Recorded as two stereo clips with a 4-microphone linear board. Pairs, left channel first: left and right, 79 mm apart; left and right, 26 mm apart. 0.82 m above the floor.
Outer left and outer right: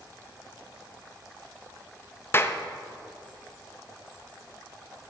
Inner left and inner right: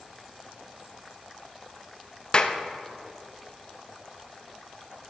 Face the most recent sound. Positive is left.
turn(degrees=30)  # may be behind; listen again after turning